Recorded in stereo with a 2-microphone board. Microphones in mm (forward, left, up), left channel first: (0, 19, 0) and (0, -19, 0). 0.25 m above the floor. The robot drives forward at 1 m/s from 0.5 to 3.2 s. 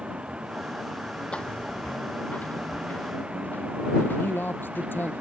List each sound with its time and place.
0.0 s a vehicle: 30° right (ahead or behind); by 5.2 s 35° right (ahead or behind)
1.3 s footsteps: 35° left (ahead or behind); by 5.2 s 75° left (ahead or behind)
4.2 s a man speaking: 80° left